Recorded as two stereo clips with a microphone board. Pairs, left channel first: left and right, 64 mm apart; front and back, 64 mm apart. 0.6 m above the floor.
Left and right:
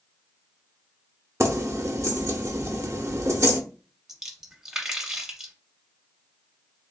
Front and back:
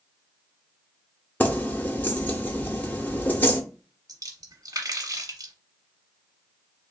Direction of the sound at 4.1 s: 170° right.